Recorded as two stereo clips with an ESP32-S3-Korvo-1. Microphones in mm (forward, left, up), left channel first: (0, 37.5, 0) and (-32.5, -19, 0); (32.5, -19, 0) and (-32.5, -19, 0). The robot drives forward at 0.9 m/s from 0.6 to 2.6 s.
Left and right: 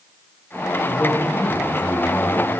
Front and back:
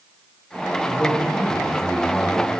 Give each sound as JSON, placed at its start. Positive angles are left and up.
{"t": 0.8, "sound": "a man speaking", "azimuth_deg": 55, "distance_m": 3.5}